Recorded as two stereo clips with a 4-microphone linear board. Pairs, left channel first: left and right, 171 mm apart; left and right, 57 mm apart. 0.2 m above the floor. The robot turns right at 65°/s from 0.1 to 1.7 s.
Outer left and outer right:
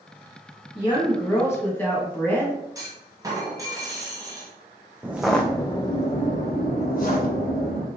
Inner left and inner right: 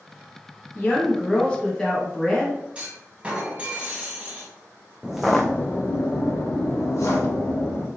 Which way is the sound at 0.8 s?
100° left.